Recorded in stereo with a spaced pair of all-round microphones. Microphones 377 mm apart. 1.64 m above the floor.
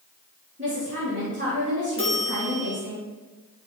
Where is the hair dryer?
No hair dryer in this recording.